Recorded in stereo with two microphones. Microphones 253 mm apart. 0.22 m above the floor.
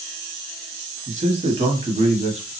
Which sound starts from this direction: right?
A man speaking, at 1.1 s.